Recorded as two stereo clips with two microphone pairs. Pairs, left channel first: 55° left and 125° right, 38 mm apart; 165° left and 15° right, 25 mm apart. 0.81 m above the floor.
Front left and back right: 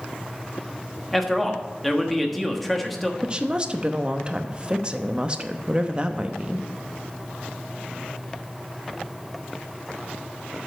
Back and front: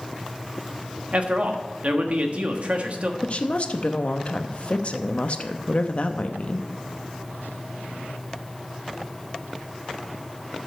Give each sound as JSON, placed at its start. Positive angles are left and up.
{"t": 1.1, "sound": "a man speaking", "azimuth_deg": -30, "distance_m": 1.2}
{"t": 3.2, "sound": "a woman speaking", "azimuth_deg": 180, "distance_m": 0.7}